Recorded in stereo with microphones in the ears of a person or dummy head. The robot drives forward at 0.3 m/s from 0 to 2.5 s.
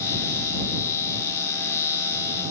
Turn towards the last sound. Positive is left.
No sound to turn to.